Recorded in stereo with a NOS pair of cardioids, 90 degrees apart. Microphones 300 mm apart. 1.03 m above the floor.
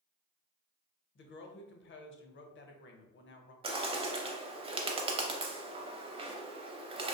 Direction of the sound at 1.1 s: 40° left.